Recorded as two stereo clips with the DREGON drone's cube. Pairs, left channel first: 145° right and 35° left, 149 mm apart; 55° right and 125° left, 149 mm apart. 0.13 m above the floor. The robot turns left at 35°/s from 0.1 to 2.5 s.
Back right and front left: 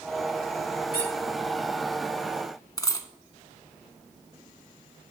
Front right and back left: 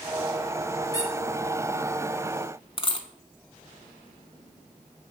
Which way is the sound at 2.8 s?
90° right.